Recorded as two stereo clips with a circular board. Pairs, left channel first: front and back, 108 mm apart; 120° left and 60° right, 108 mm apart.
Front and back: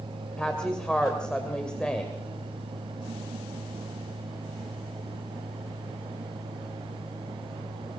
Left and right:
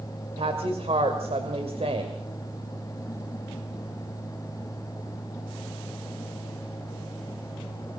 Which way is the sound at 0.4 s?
80° right.